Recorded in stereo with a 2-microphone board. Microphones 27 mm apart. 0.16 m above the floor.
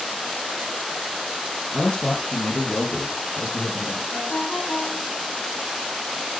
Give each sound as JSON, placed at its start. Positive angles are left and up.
{"t": 1.7, "sound": "a man speaking", "side_deg": 40, "distance_m": 3.0}
{"t": 4.1, "sound": "a ringtone", "side_deg": 80, "distance_m": 7.5}